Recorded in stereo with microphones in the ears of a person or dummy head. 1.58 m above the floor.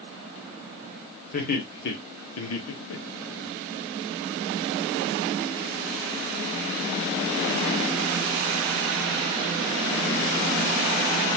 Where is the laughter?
55° left (ahead or behind), 1.4 m; by 3.5 s 60° left (ahead or behind), 1.1 m.